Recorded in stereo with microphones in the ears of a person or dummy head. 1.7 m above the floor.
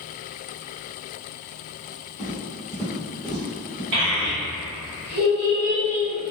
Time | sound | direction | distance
2.2 | footsteps | 15° right (ahead or behind) | 1.8 m
3.9 | a child speaking | 65° right (ahead or behind) | 1.2 m